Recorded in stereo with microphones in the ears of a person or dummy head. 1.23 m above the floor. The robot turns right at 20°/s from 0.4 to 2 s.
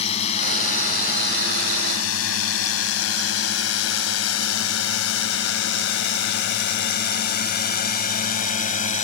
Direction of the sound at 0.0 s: 40° left (ahead or behind).